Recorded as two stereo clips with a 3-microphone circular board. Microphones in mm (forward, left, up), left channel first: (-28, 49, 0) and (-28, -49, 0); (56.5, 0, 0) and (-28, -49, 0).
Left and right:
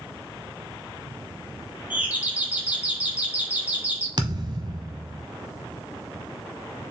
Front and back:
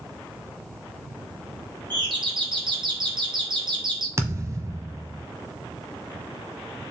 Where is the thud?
105° right, 1.2 m.